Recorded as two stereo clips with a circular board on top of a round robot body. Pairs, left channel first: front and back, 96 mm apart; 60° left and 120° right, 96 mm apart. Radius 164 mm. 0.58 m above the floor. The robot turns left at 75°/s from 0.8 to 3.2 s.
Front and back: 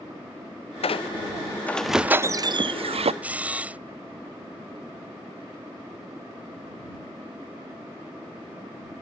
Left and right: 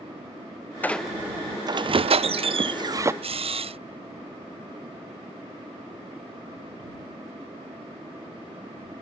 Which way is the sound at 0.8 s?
10° right.